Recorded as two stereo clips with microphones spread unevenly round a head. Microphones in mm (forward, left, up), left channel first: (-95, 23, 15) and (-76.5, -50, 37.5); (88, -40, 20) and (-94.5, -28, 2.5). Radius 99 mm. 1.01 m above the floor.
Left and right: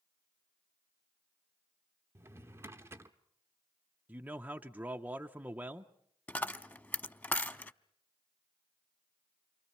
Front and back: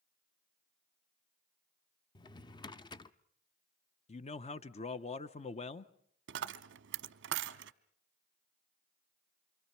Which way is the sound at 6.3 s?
Straight behind.